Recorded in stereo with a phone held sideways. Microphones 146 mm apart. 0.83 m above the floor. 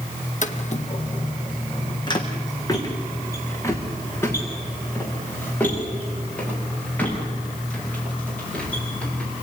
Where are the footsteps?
60° left (ahead or behind), 1.7 m; by 9.3 s 10° left (ahead or behind), 11 m.